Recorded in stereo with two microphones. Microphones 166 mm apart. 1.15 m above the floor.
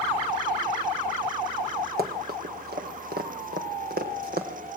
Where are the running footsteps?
65° right (ahead or behind), 3 m; by 4.5 s 75° right (ahead or behind), 4 m.